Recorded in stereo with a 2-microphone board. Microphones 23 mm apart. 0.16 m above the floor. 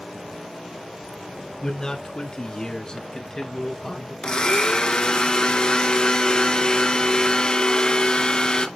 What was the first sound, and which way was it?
A man speaking, 30° left (ahead or behind).